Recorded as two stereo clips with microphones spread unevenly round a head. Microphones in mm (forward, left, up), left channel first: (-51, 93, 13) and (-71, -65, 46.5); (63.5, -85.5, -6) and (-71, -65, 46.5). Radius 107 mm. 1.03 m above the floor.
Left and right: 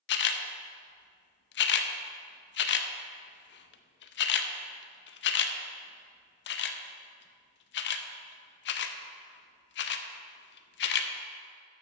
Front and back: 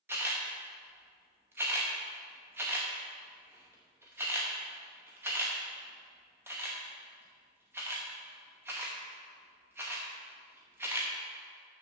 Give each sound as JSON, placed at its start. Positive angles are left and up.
{"t": 0.1, "sound": "a camera shutter", "azimuth_deg": 95, "distance_m": 0.6}